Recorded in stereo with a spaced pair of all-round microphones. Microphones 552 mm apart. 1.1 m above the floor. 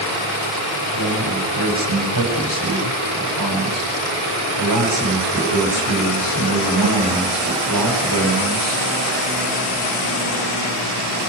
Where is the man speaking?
40° right (ahead or behind), 7.5 m.